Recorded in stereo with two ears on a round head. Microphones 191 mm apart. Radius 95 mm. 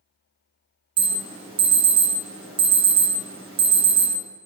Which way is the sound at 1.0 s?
25° right (ahead or behind).